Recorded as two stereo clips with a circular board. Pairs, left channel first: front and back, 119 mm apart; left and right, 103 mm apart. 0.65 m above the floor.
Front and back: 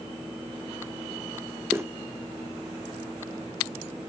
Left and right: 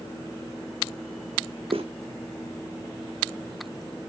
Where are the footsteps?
110° right, 2.5 m.